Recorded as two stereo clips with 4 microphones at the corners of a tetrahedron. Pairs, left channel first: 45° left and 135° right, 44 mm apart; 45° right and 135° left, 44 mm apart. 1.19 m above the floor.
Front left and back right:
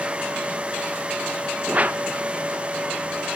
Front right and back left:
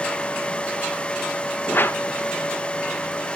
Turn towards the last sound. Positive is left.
turn(degrees=-80)